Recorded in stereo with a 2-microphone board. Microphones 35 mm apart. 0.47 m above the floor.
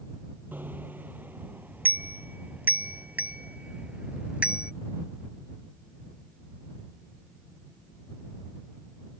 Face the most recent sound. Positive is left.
turn(degrees=-30)  # may be behind; listen again after turning